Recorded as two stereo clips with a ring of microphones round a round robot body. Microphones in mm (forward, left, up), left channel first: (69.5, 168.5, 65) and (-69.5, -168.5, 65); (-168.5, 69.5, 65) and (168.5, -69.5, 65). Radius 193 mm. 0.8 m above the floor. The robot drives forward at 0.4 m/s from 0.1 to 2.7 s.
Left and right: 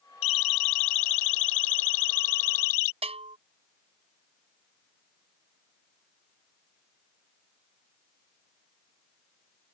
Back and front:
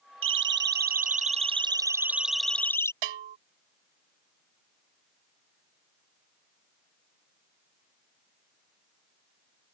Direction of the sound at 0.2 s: 35° left.